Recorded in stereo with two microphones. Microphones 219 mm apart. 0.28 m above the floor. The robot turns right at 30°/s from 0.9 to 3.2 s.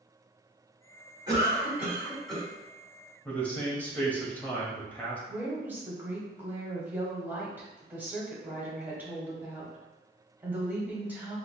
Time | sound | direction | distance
1.3 | a cough | 30° right | 2.0 m
3.2 | a man speaking | 5° left (ahead or behind) | 0.9 m
5.3 | a woman speaking | 10° right (ahead or behind) | 1.1 m